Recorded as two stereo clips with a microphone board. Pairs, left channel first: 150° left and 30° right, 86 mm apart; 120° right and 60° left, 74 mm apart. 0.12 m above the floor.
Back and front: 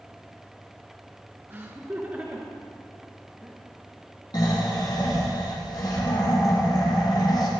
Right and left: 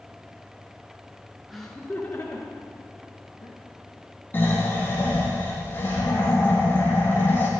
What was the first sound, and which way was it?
Laughter, 25° right.